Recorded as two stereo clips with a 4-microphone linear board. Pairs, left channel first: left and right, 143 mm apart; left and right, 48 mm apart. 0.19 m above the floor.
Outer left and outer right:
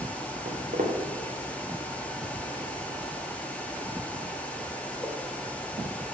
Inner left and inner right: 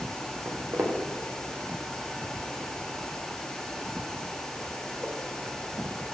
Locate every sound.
0.5 s footsteps: 75° right (ahead or behind), 1.7 m; by 5.1 s 10° left (ahead or behind), 2.5 m